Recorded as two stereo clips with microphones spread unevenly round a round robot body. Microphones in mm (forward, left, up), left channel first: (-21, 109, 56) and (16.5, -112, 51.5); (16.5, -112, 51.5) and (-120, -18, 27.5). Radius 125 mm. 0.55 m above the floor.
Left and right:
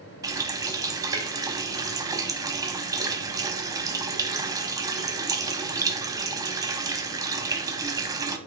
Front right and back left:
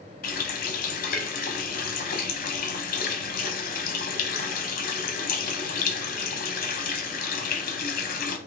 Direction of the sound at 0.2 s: 10° right.